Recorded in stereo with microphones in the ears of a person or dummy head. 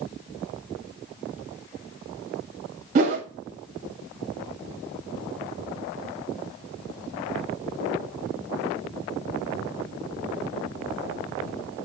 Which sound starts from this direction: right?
A whoosh, at 3.0 s.